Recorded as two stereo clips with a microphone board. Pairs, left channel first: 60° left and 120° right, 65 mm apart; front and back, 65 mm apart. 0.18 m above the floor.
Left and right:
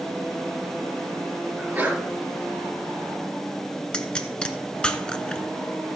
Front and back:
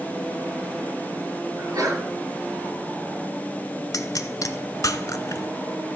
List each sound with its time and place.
1.6 s a sneeze: straight behind, 3.5 m
3.9 s a pop: 10° right, 0.7 m